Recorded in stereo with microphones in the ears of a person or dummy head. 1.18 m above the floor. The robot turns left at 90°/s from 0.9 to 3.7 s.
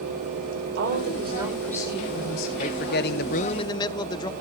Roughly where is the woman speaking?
Behind right.